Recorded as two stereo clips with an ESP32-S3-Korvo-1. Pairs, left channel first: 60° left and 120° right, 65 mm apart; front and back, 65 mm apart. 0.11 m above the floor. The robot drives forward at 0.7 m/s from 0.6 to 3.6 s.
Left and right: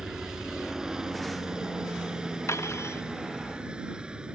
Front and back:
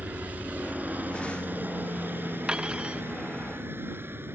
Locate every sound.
0.0 s a helicopter: 170° left; by 4.4 s 175° left
2.5 s cutlery clinking: 105° left